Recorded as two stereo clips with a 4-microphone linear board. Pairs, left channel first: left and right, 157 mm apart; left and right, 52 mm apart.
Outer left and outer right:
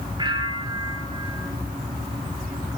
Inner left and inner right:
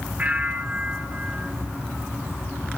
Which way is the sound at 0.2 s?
30° right (ahead or behind).